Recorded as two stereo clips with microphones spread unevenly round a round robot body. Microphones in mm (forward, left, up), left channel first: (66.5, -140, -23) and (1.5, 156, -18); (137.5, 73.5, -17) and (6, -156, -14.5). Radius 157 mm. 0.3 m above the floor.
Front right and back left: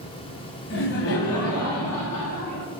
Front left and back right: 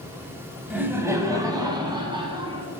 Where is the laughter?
40° right, 1.3 m; by 2.7 s 50° right, 2.5 m.